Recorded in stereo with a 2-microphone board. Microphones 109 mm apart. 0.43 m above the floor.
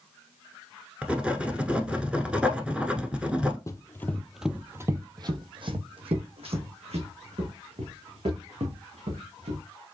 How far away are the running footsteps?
About 0.7 m.